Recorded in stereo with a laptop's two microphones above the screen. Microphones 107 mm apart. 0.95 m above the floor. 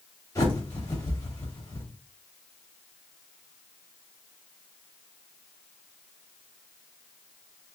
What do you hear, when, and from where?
0.3 s a bird: 30° left (ahead or behind), 2.5 m